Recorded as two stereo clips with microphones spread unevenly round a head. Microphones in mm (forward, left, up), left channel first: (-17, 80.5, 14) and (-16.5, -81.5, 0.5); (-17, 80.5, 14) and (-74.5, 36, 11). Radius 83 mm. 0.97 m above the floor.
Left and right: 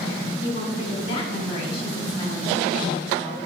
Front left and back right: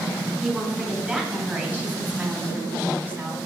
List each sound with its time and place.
0.4 s a woman speaking: 145° left, 4 m; by 3.4 s 165° left, 2.5 m